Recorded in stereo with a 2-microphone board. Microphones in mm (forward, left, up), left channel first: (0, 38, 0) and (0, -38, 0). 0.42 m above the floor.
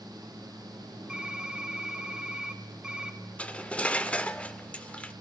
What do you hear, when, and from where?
1.1 s typing on a keyboard: 15° right (ahead or behind), 1.1 m
3.4 s cutlery clinking: 15° left (ahead or behind), 0.5 m